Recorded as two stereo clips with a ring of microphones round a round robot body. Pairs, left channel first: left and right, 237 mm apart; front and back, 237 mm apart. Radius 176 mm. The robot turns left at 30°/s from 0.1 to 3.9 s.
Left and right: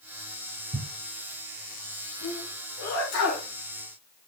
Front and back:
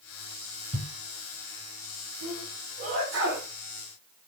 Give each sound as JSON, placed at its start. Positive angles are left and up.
{"t": 0.7, "sound": "a thud", "azimuth_deg": -120, "distance_m": 7.0}
{"t": 2.2, "sound": "a sneeze", "azimuth_deg": 165, "distance_m": 3.5}